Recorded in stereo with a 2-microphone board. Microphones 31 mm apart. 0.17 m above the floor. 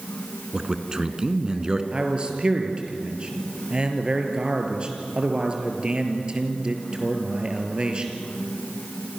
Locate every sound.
0.5 s a man speaking: 25° right (ahead or behind), 2 m
1.9 s a man speaking: 30° right (ahead or behind), 4 m